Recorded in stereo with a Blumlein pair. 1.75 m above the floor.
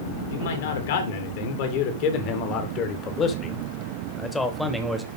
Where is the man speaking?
60° left, 3.5 m; by 5.1 s straight ahead, 2 m.